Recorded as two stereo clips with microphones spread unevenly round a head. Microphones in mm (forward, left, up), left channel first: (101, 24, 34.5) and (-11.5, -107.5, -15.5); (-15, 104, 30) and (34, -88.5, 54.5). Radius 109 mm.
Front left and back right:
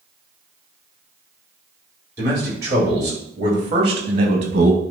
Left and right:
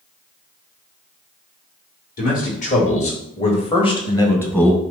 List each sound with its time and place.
2.2 s a man speaking: 155° left, 4 m; by 4.8 s 170° right, 1.5 m